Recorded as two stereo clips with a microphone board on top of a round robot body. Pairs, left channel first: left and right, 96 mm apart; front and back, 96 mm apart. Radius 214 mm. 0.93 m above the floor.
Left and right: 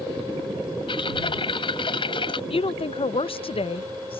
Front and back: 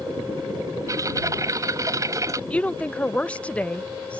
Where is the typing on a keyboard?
125° left.